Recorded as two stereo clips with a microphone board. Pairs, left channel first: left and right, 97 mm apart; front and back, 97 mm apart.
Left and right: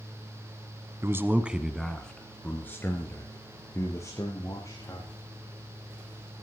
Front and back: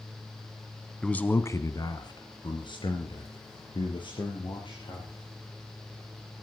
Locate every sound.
1.0 s a man speaking: 70° right, 1.4 m; by 5.1 s 35° left, 6 m